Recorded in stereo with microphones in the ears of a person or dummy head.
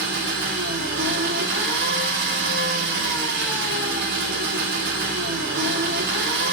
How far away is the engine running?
About 2 m.